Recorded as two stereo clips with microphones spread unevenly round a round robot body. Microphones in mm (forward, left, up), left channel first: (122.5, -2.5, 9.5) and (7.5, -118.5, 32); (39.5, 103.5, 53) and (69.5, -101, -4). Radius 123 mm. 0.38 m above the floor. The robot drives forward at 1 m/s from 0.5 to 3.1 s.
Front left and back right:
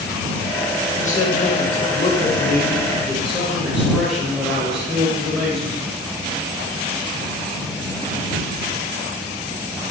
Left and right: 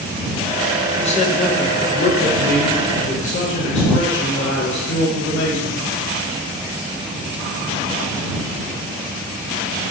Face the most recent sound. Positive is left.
turn(degrees=130)